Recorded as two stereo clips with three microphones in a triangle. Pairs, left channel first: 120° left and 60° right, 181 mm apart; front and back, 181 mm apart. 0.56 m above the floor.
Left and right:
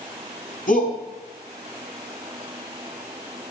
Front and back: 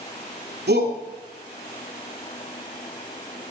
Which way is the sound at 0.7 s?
160° left.